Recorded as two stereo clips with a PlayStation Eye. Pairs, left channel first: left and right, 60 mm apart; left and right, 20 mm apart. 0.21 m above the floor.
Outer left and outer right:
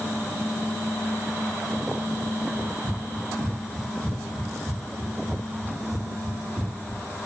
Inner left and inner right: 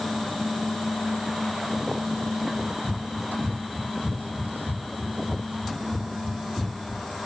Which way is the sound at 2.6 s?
30° right (ahead or behind).